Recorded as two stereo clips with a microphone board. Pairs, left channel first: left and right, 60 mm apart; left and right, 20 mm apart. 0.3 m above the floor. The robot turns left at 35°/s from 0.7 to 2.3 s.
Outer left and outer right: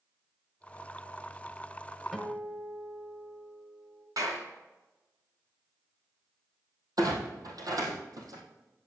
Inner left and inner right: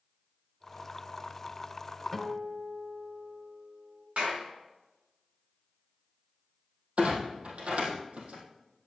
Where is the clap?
70° right (ahead or behind), 2.5 m.